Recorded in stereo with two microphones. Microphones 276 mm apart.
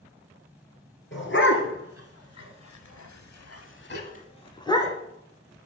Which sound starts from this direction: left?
A dog barking, at 1.1 s.